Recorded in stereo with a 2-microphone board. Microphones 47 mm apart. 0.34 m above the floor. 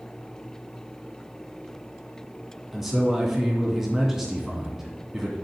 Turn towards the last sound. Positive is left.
turn(degrees=-10)  # may be behind; listen again after turning